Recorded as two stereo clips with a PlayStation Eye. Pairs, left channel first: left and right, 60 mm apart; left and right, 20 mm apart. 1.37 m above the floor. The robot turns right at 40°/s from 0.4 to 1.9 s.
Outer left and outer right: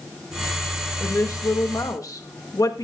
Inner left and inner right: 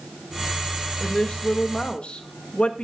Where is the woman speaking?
50° left, 1.9 m; by 2.9 s 85° left, 1.9 m.